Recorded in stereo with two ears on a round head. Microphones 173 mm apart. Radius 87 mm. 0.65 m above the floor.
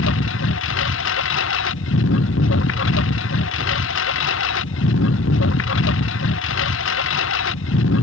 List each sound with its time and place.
0.0 s a lawn mower: 70° left (ahead or behind)